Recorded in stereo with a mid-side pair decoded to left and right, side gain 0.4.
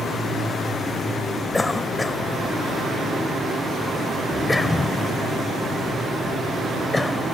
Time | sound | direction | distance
1.5 | a cough | 25° left | ?